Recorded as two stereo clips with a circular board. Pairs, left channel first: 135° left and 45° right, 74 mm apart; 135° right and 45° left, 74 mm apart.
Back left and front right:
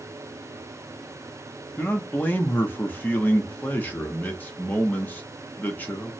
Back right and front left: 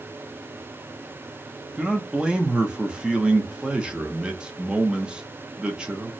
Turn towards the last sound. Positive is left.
turn(degrees=105)